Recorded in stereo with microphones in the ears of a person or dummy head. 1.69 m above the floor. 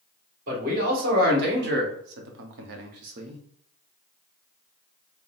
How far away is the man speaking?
About 2.0 m.